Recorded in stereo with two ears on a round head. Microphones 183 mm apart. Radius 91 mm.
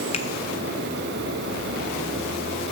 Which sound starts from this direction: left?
A finger snap, at 0.1 s.